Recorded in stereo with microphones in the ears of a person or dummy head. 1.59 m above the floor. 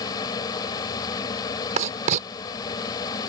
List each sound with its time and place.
0.0 s a fan: 20° left (ahead or behind)
1.8 s writing: 45° right (ahead or behind)